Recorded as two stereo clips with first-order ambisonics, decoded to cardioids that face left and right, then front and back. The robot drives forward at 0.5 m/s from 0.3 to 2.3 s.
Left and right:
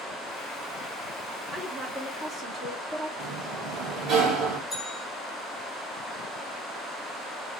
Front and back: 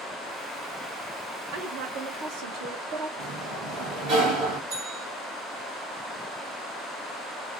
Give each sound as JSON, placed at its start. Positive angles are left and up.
{"t": 1.5, "sound": "a woman speaking", "azimuth_deg": -165, "distance_m": 0.8}
{"t": 3.2, "sound": "a sliding door", "azimuth_deg": -140, "distance_m": 1.6}
{"t": 4.7, "sound": "a bell", "azimuth_deg": 180, "distance_m": 1.4}